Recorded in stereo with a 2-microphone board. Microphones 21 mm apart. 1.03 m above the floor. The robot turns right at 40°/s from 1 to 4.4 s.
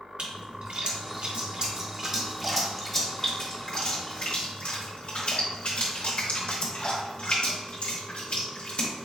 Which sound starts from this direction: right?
A splash, at 0.2 s.